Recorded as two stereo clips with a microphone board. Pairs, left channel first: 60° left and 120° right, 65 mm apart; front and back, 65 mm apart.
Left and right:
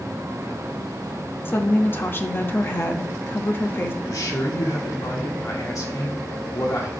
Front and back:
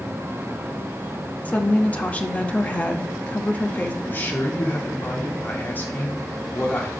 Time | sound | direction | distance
1.4 | a woman speaking | 50° left | 0.9 m
4.0 | a man speaking | 55° left | 1.7 m